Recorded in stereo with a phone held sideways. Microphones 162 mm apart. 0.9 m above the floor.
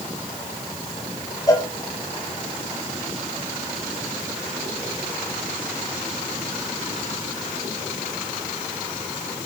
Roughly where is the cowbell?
Left.